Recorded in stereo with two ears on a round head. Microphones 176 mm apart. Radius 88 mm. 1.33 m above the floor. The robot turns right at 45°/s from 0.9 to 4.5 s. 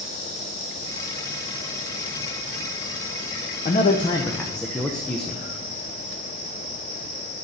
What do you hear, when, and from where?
3.6 s a man speaking: 135° left, 0.6 m; by 5.4 s 175° left, 0.6 m